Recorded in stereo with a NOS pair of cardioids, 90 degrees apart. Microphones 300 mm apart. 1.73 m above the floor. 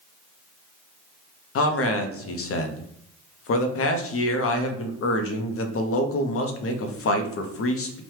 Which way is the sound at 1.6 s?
50° left.